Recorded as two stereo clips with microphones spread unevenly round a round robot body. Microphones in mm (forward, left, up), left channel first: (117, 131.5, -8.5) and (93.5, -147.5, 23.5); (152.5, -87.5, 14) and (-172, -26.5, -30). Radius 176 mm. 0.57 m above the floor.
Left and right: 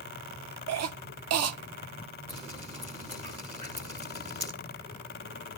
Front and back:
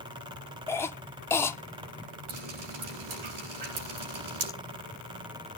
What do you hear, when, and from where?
0.7 s a cough: 100° right, 0.9 m
2.3 s dripping: 165° right, 7 m